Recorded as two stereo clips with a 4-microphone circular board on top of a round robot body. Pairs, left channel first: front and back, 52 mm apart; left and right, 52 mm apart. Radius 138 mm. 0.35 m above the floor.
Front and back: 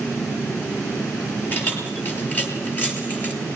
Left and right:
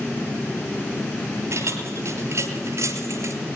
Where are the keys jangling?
55° right, 7.5 m; by 3.3 s 60° right, 6.5 m.